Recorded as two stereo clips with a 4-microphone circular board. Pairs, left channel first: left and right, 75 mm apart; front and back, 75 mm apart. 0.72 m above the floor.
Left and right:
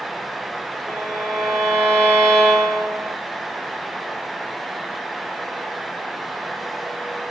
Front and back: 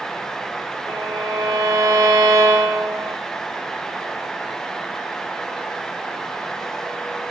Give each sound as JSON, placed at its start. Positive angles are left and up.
{"t": 0.9, "sound": "a violin", "azimuth_deg": 175, "distance_m": 1.4}